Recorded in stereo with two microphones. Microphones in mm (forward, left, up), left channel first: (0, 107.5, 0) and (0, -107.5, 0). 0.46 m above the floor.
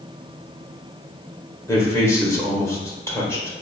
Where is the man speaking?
15° left (ahead or behind), 1.4 m.